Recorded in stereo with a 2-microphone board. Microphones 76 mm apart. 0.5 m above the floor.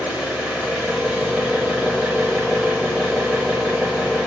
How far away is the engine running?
About 0.9 m.